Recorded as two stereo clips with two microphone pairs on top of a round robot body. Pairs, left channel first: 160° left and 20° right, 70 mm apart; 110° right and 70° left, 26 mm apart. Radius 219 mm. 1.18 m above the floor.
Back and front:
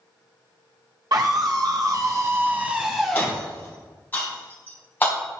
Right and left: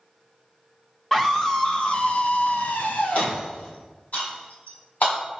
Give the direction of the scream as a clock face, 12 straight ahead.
1 o'clock.